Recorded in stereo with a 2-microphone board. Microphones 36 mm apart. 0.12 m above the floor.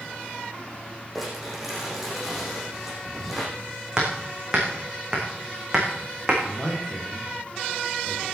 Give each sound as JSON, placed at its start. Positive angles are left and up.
{"t": 1.1, "sound": "crumpling", "side_deg": -5, "distance_m": 6.5}
{"t": 4.0, "sound": "hammering", "side_deg": -20, "distance_m": 4.5}
{"t": 6.4, "sound": "a man speaking", "side_deg": 20, "distance_m": 5.0}